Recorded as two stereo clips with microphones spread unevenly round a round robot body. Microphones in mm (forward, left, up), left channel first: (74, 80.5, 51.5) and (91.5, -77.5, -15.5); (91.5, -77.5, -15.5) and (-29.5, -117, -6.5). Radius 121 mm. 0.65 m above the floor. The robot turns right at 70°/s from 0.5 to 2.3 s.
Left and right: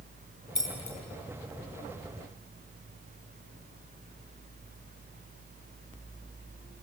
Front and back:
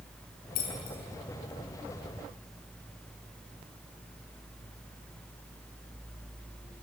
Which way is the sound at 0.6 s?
30° left.